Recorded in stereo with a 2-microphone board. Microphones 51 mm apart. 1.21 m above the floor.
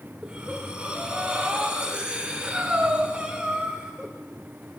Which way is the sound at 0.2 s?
20° right (ahead or behind).